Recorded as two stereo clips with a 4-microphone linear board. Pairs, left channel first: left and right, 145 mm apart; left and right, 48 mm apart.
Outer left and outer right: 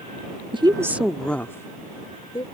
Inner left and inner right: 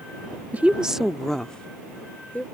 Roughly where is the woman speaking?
Right.